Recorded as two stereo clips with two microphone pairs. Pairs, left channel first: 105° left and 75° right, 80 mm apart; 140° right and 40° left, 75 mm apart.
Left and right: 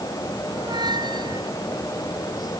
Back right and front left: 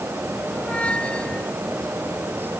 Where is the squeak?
65° right.